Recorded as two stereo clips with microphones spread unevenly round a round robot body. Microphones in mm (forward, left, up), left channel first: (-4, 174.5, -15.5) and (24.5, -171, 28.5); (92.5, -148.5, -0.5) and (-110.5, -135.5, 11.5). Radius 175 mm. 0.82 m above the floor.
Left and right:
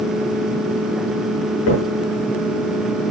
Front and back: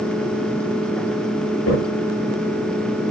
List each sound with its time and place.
1.7 s a crack: 45° left, 7.5 m